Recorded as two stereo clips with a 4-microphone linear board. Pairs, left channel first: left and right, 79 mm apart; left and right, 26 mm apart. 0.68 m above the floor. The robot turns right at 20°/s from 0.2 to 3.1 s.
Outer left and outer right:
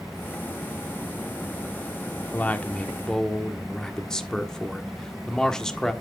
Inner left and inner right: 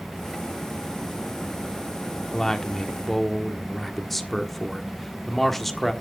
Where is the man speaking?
20° left (ahead or behind), 1.4 m; by 5.9 s 10° left (ahead or behind), 1.4 m.